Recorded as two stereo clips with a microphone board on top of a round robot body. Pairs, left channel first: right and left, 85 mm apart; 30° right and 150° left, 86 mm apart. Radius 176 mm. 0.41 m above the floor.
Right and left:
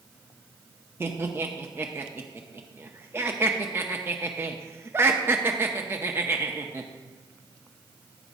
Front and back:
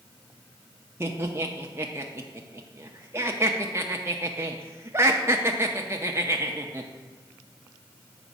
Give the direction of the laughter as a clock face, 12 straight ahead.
8 o'clock.